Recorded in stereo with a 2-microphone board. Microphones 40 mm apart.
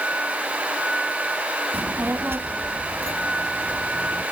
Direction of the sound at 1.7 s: 60° right (ahead or behind).